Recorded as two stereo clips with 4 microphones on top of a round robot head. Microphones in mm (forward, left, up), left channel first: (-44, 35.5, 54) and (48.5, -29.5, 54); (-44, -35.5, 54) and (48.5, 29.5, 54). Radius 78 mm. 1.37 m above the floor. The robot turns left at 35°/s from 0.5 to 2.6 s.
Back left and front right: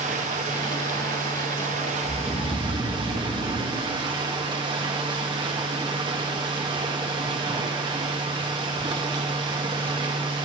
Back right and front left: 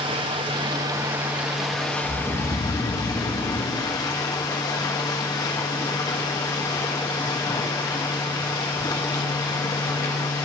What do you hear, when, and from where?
0.0 s running water: 15° right, 1.7 m; by 10.5 s 85° right, 1.7 m
2.0 s snoring: 160° right, 4 m; by 3.9 s straight behind, 4 m